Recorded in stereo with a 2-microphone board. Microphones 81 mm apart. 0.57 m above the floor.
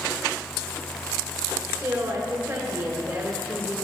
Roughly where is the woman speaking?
Right.